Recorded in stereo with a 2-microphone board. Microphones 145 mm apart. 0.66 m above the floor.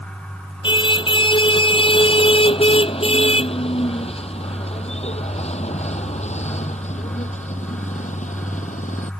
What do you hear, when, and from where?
0.6 s a car horn: 35° left (ahead or behind); by 9.1 s 60° left (ahead or behind)